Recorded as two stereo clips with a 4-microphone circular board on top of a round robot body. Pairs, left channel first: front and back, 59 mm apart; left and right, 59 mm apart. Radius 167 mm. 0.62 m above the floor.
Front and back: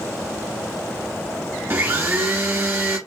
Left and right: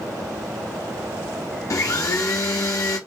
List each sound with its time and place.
1.7 s a blender: 120° left, 1.0 m